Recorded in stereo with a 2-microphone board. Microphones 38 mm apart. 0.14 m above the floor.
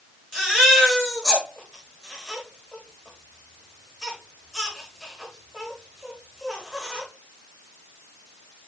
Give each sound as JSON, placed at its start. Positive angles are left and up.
{"t": 0.3, "sound": "a baby crying", "side_deg": 15, "distance_m": 7.0}